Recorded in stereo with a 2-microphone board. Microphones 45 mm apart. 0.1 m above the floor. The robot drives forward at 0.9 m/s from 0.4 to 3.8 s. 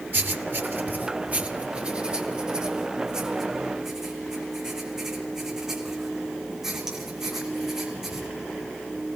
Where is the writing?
50° right (ahead or behind), 0.9 m; by 8.3 s 15° right (ahead or behind), 3 m.